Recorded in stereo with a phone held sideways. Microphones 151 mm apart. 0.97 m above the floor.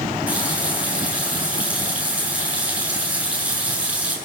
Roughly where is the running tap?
Centre.